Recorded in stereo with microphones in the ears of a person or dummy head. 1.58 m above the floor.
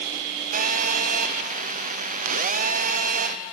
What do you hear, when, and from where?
0.5 s a phone buzzing: 40° right (ahead or behind), 0.7 m